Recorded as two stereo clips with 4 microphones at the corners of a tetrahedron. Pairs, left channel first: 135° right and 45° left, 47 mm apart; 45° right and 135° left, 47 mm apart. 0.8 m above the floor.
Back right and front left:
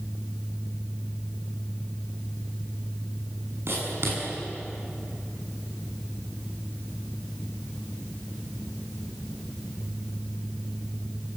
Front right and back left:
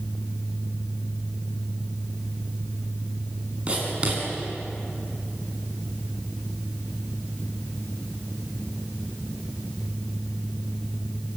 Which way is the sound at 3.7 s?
70° left.